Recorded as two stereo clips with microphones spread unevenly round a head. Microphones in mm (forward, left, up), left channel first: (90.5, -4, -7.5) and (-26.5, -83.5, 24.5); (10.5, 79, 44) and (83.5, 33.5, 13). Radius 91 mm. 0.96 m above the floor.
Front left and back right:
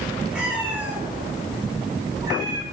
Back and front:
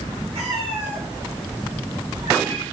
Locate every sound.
0.3 s a cat meowing: 65° right, 7 m; by 2.6 s 90° right, 5 m